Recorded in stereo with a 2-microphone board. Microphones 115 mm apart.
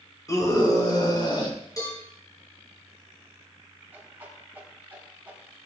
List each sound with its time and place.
0.3 s a scream: 30° left (ahead or behind), 2.5 m; by 1.6 s 40° left (ahead or behind), 4.5 m
1.8 s a cowbell: 30° left (ahead or behind), 5 m
3.9 s a whoosh: 15° right (ahead or behind), 3.5 m